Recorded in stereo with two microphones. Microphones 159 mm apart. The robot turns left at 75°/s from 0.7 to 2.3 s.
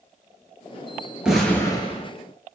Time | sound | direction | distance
1.2 | an explosion | 175° right | 1.0 m